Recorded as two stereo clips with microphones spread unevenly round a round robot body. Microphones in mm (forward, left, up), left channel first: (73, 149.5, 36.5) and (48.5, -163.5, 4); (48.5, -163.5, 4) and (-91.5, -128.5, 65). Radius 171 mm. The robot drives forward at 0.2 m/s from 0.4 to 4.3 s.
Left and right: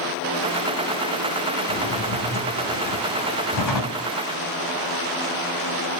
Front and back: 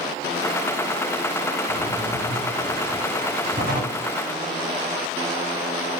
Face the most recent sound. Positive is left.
turn(degrees=105)